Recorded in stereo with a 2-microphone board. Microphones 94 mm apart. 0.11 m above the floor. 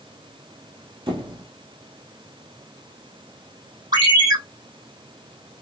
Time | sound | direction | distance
1.1 | a squeak | 60° right (ahead or behind) | 1.2 m
3.9 | a ringtone | 50° right (ahead or behind) | 3 m